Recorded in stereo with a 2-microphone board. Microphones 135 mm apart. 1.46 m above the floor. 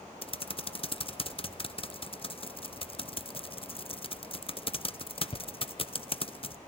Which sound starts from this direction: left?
Typing on a keyboard, at 0.2 s.